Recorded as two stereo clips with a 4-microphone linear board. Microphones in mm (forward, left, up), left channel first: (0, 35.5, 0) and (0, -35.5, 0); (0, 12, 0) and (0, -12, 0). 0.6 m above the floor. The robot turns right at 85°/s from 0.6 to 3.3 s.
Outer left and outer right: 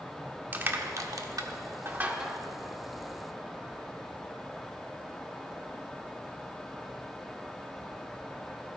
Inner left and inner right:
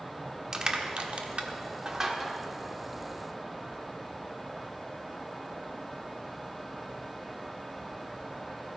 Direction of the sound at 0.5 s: 25° right (ahead or behind).